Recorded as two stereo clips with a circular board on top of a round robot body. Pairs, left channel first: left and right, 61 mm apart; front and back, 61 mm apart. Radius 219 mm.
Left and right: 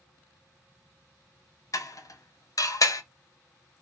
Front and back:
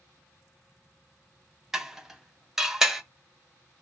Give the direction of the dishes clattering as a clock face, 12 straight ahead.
9 o'clock.